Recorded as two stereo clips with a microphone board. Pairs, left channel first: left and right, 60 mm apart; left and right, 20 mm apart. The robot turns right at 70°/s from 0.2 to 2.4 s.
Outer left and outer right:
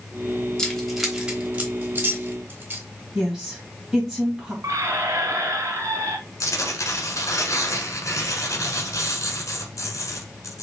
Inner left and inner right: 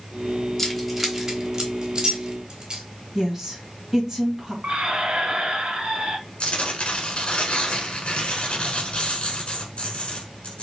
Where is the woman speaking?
10° right (ahead or behind), 2.0 m.